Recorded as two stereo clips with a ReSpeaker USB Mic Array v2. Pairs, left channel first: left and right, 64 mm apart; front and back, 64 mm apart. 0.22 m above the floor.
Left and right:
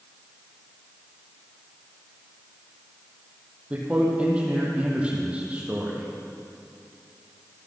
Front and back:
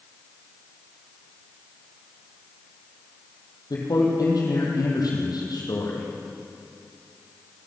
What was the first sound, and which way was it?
A man speaking, 20° right.